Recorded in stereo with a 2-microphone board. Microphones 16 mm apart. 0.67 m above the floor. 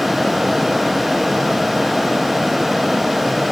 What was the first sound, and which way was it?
Only background noise.